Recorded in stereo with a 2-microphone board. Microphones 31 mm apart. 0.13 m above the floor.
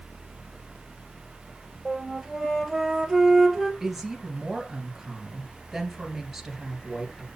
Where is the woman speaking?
Centre (ahead or behind), 2.5 m.